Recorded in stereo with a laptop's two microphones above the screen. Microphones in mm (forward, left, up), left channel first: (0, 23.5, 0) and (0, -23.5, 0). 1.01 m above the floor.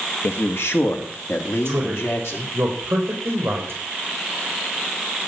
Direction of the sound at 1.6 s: 60° right (ahead or behind).